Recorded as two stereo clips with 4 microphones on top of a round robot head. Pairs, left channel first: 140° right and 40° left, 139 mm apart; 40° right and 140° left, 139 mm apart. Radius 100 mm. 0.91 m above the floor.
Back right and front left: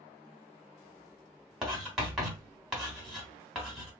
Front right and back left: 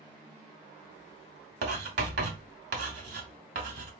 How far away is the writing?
About 1.1 m.